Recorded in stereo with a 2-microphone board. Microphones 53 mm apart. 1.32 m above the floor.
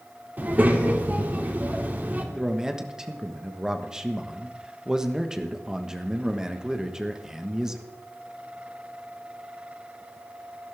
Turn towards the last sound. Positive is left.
turn(degrees=-10)  # may be behind; listen again after turning